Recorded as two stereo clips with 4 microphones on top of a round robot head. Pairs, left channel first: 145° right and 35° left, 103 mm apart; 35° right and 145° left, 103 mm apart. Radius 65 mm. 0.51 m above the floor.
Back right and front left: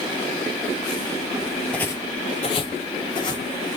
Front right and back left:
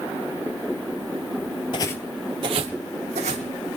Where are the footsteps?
70° right, 0.6 m; by 3.5 s 165° left, 1.8 m.